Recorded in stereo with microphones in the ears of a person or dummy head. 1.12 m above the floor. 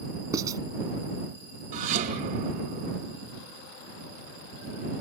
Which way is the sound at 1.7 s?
45° right (ahead or behind).